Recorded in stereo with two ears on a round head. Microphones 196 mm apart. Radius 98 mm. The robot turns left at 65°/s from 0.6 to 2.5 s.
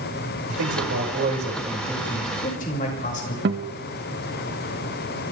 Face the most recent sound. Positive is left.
turn(degrees=-50)  # may be behind; listen again after turning